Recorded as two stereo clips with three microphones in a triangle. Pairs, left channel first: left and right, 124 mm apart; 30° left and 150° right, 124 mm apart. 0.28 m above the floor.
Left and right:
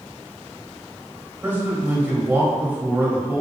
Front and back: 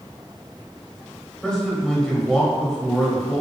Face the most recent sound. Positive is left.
turn(degrees=-45)